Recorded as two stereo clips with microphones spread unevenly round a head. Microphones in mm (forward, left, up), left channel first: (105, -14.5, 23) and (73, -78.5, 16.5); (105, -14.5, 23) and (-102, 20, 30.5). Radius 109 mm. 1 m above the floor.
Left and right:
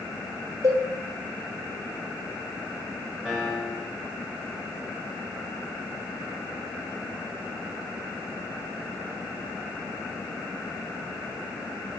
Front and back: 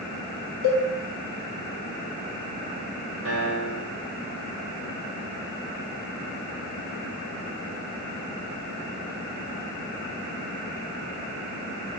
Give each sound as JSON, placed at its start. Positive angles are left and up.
{"t": 0.6, "sound": "a cowbell", "azimuth_deg": -155, "distance_m": 3.5}
{"t": 3.2, "sound": "a piano", "azimuth_deg": 150, "distance_m": 2.0}